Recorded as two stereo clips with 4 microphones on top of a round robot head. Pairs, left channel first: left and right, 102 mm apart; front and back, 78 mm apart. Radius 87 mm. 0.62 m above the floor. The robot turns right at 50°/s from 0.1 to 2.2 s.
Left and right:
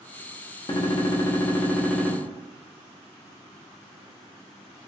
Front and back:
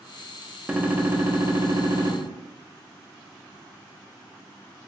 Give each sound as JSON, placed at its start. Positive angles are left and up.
{"t": 0.7, "sound": "a gunshot", "azimuth_deg": 110, "distance_m": 0.7}